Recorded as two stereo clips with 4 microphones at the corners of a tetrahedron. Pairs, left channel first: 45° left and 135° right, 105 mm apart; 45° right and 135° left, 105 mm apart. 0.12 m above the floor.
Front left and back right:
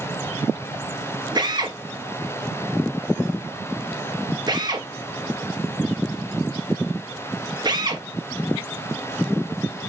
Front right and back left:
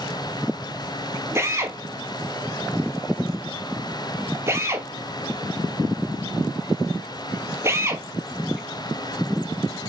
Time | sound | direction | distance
1.4 | a drill | 170° right | 1.4 m